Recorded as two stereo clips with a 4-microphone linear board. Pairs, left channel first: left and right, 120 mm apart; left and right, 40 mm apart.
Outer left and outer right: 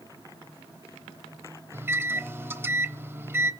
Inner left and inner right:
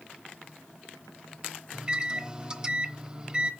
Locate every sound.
1.7 s a microwave: 20° right (ahead or behind), 0.8 m